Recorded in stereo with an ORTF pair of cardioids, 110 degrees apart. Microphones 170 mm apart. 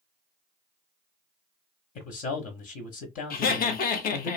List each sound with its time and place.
1.9 s a man speaking: 50° left, 0.9 m
3.3 s laughter: 60° left, 0.9 m